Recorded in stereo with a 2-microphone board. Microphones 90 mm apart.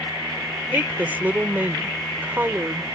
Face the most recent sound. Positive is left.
turn(degrees=-20)  # may be behind; listen again after turning